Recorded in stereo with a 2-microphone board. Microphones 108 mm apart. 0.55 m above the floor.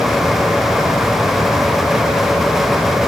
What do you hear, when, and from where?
Only background noise.